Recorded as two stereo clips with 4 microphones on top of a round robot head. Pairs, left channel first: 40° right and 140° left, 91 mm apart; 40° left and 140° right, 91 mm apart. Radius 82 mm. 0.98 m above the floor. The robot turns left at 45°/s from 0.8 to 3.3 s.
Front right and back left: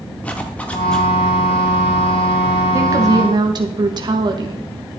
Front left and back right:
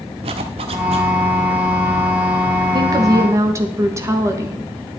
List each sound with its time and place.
0.2 s a zipper: 115° right, 0.9 m; by 1.1 s 130° right, 0.9 m
2.7 s a woman speaking: 170° right, 1.4 m; by 4.7 s 165° left, 1.4 m